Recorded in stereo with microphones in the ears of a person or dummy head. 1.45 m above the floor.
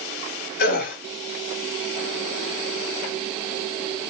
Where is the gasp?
55° left (ahead or behind), 3 m.